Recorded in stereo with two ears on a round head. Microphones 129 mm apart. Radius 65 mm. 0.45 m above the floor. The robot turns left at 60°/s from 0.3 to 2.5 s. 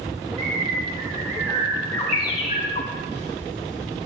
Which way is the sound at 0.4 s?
75° right (ahead or behind).